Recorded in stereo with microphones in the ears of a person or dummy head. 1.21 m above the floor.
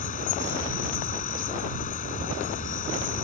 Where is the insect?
40° left (ahead or behind).